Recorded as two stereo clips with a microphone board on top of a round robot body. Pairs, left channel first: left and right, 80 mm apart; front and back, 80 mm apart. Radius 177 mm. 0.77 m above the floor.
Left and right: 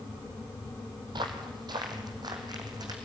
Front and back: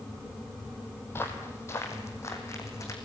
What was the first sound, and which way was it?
Footsteps, 60° right.